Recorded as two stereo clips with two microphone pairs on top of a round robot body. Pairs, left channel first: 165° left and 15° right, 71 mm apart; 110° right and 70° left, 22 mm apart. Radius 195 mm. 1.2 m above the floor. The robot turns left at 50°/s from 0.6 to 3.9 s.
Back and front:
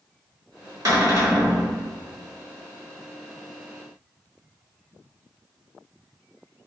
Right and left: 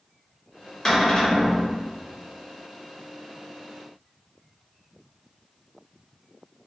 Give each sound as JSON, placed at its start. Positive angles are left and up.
{"t": 0.8, "sound": "a cupboard door", "azimuth_deg": -45, "distance_m": 1.3}